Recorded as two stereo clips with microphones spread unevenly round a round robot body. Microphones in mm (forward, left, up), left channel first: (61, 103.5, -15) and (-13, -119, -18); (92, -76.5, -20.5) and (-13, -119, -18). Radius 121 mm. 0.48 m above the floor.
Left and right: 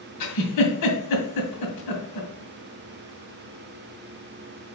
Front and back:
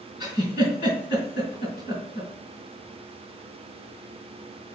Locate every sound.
0.2 s a giggle: 80° left, 2 m